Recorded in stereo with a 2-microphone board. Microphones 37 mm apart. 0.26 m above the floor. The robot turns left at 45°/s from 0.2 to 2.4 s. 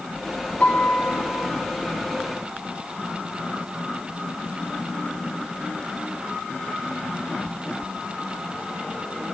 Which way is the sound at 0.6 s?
120° left.